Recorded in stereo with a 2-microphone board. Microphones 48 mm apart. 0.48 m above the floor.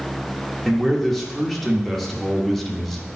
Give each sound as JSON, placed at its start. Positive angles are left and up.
{"t": 0.7, "sound": "a man speaking", "side_deg": 5, "distance_m": 1.1}